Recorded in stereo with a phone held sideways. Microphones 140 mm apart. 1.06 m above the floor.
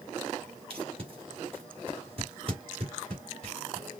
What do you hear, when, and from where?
0.7 s tape being pulled: 45° right (ahead or behind), 2 m